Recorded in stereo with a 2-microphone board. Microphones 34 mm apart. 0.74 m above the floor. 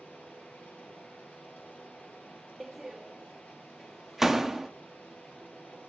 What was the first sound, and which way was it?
Running water, 65° left (ahead or behind).